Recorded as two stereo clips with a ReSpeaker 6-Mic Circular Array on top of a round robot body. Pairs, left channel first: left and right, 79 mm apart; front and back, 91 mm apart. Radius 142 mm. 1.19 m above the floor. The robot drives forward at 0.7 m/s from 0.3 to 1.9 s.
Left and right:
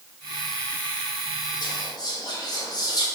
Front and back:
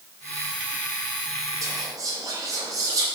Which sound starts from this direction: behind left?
Whispering, at 1.6 s.